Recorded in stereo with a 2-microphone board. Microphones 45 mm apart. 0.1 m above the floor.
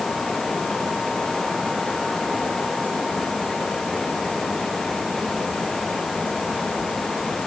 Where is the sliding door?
I don't hear a sliding door.